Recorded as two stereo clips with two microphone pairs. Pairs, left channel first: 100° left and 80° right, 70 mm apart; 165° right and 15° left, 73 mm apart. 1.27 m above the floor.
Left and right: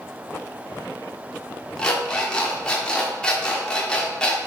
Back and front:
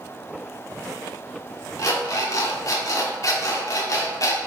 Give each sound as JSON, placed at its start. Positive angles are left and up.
{"t": 1.8, "sound": "an alarm clock", "azimuth_deg": 175, "distance_m": 1.3}